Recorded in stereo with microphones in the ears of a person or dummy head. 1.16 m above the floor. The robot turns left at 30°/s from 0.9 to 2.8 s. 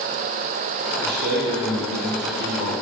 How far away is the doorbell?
No doorbell in this recording.